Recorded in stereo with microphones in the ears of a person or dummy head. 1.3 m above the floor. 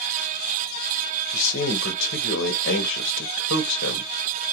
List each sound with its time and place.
1.3 s a man speaking: 70° left (ahead or behind), 0.8 m